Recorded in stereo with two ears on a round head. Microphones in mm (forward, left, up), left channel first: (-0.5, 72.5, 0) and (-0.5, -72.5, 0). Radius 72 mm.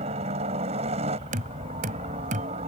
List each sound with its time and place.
0.0 s a helicopter: 40° right (ahead or behind)
1.3 s knocking: 50° right (ahead or behind)